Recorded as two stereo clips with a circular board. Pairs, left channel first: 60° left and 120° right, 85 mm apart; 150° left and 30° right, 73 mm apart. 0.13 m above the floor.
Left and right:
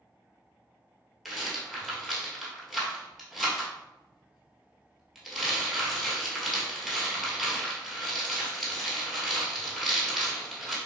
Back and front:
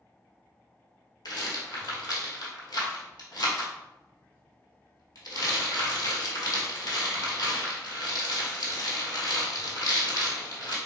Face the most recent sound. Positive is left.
turn(degrees=150)